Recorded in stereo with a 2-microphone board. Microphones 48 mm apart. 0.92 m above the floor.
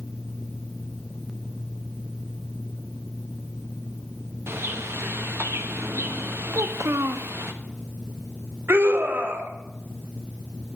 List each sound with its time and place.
4.5 s a bird: 60° right (ahead or behind), 1.2 m
6.5 s a child speaking: 75° right (ahead or behind), 0.9 m
8.7 s a scream: 50° right (ahead or behind), 2.0 m